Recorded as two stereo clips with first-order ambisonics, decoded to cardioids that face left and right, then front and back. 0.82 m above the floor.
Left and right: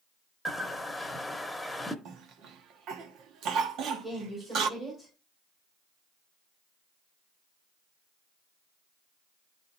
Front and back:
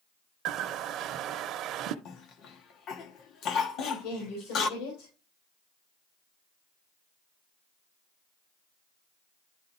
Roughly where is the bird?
Behind.